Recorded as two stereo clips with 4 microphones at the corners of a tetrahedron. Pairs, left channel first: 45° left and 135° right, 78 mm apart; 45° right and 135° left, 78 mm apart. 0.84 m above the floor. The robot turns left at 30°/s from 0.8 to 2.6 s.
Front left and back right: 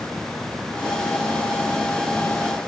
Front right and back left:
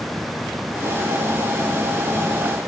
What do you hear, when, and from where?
Only background noise.